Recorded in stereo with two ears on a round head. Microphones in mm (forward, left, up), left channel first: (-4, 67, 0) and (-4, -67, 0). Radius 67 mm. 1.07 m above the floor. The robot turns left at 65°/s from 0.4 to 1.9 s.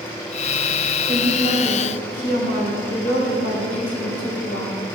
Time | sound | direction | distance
1.1 | a woman speaking | 165° left | 4.5 m